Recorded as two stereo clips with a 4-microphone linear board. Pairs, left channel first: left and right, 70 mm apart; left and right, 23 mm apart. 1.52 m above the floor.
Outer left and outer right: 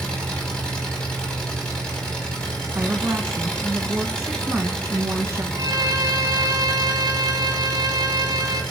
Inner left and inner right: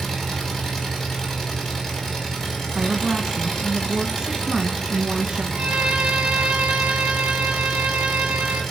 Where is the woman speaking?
30° right (ahead or behind), 1.8 m.